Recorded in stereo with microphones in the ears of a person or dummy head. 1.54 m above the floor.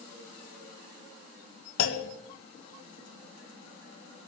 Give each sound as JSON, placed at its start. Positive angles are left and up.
{"t": 1.8, "sound": "a clunk", "side_deg": 85, "distance_m": 2.0}